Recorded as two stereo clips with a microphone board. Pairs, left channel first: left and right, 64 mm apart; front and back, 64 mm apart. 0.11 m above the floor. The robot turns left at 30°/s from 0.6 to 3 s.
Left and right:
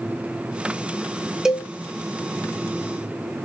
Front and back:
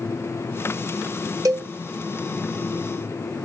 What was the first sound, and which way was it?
A cowbell, 170° right.